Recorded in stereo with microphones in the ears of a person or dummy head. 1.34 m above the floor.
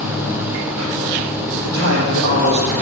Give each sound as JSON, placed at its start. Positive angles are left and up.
{"t": 1.6, "sound": "a man speaking", "side_deg": -80, "distance_m": 2.0}